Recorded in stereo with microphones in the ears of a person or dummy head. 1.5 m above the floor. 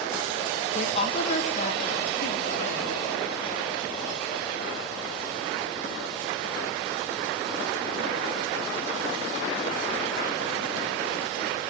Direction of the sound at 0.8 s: 40° left (ahead or behind).